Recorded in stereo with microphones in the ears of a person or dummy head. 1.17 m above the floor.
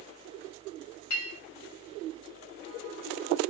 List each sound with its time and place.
1.1 s a clink: 65° left (ahead or behind), 2 m